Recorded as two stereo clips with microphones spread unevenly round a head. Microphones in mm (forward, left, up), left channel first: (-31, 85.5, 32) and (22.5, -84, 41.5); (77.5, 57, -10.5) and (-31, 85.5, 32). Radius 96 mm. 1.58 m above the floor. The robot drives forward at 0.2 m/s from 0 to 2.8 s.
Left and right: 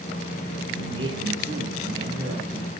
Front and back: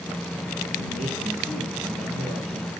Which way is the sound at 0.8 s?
135° right.